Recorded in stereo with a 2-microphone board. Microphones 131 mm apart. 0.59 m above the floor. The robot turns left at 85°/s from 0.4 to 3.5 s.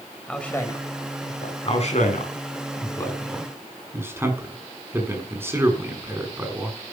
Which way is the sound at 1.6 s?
40° left (ahead or behind).